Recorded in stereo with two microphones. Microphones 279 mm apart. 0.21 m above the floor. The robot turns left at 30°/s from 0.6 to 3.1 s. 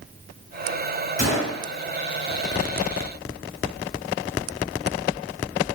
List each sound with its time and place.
1.2 s a gunshot: 35° left (ahead or behind), 1.3 m; by 1.6 s 25° left (ahead or behind), 1.3 m